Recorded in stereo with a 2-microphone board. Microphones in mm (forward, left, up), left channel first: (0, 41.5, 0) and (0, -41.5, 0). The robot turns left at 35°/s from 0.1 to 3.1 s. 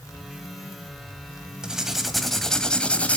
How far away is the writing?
About 1.3 m.